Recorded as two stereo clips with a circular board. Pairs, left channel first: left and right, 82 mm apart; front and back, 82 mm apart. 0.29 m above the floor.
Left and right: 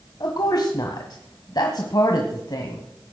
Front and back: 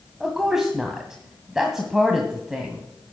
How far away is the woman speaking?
About 1.5 m.